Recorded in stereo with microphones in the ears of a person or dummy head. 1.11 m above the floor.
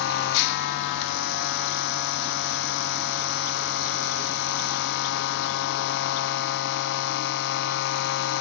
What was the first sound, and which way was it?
A machine running, 60° left (ahead or behind).